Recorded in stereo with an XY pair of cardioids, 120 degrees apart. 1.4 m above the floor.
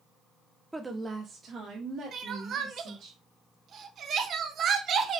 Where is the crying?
55° right, 0.6 m.